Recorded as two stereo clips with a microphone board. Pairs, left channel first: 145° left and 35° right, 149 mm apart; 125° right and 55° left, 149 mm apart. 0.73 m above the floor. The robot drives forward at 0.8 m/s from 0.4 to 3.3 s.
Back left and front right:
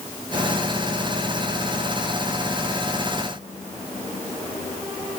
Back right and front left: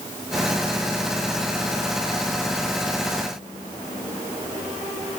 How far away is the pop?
No pop in this recording.